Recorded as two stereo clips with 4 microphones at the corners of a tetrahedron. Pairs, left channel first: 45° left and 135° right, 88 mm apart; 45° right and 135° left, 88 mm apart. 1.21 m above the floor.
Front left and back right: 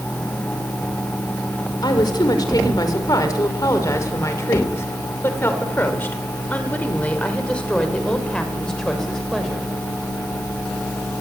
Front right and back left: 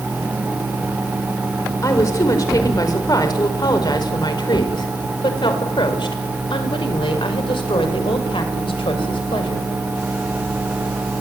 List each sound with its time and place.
1.8 s a woman speaking: 5° left, 5.5 m; by 9.7 s 45° right, 6.5 m